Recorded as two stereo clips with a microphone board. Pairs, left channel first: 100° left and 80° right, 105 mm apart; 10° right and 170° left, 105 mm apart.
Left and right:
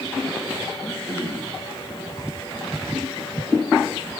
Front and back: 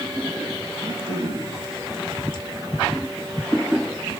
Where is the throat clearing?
175° left, 5 m.